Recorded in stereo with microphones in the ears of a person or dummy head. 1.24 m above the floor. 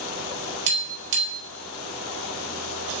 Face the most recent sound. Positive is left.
turn(degrees=-75)  # may be behind; listen again after turning